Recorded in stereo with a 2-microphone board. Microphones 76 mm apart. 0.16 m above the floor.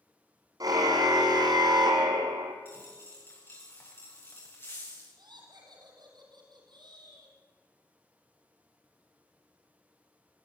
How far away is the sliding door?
No sliding door in this recording.